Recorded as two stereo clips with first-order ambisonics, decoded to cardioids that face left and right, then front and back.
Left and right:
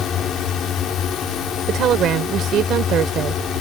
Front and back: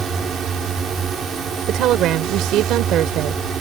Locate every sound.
0.0 s a drone: 135° left
1.7 s a woman speaking: 140° right